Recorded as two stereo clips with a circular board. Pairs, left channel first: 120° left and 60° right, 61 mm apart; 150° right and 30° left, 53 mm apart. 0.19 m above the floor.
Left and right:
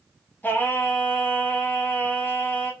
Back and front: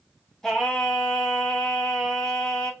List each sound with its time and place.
0.4 s singing: 135° left, 0.8 m